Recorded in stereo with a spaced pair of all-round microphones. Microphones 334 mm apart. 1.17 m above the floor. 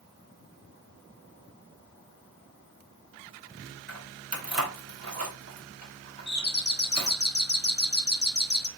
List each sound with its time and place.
3.9 s keys jangling: 50° right (ahead or behind), 1.2 m
6.3 s a doorbell: 30° left (ahead or behind), 0.6 m